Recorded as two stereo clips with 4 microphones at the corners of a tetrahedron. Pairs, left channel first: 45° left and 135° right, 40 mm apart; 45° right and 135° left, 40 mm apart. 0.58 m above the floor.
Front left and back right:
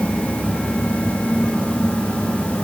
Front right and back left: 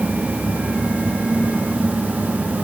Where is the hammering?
No hammering in this recording.